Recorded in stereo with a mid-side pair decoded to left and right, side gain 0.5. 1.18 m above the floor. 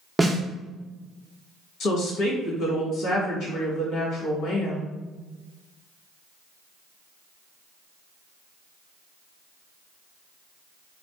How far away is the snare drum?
About 0.8 m.